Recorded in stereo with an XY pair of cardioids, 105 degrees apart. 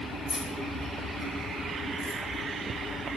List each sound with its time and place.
0.3 s keys jangling: 70° left, 4 m; by 2.2 s 75° left, 2.5 m